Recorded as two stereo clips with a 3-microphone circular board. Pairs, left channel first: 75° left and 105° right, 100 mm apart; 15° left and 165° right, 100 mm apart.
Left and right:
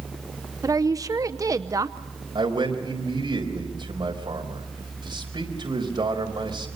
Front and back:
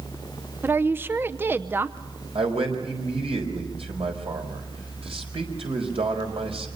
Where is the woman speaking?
115° right, 0.7 m.